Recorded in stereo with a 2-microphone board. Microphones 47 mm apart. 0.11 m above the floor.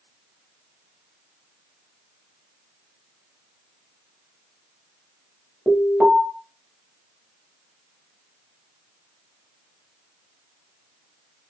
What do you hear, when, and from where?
5.7 s an alarm: 20° right (ahead or behind), 2.5 m